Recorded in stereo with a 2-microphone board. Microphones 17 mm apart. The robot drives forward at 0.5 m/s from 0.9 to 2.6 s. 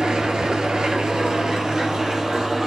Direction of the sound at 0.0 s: 65° right (ahead or behind).